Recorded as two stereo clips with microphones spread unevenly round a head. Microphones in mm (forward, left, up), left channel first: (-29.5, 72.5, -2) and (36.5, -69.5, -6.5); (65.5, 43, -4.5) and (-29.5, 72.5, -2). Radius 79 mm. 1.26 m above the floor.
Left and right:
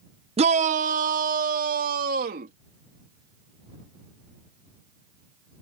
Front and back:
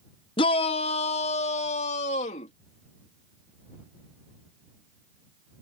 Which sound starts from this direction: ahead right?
A shout, at 0.4 s.